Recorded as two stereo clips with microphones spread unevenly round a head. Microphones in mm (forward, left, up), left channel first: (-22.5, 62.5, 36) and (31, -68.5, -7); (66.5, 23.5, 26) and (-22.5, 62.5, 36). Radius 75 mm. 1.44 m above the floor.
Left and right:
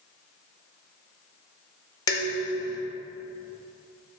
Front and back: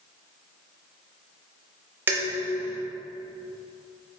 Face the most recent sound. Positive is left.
turn(degrees=105)